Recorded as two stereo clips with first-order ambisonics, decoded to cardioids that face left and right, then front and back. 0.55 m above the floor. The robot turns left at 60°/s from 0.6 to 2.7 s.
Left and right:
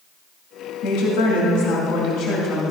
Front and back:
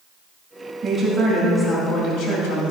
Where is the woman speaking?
125° left, 2.5 m; by 2.7 s 10° left, 2.5 m.